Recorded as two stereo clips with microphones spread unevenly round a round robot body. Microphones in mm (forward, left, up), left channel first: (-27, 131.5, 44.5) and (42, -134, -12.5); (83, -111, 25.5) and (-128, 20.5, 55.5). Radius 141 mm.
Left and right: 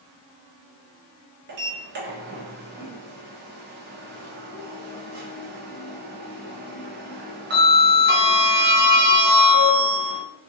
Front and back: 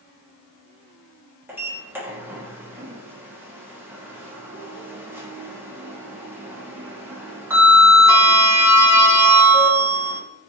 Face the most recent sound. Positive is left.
turn(degrees=-130)